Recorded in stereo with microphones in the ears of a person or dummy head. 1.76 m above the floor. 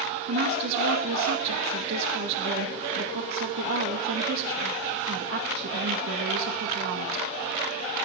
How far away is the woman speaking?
About 1.9 m.